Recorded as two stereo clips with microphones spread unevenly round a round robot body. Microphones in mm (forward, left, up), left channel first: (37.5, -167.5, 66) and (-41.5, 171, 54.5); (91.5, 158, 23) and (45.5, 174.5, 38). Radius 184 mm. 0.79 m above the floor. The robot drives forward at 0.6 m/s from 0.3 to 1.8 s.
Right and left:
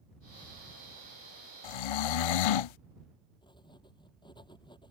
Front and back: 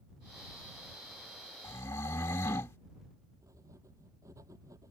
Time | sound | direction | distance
1.6 | snoring | 60° right | ?
3.4 | writing | 155° right | ?